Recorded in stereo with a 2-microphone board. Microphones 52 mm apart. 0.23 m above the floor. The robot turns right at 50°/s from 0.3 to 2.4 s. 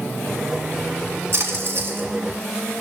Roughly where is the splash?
Right.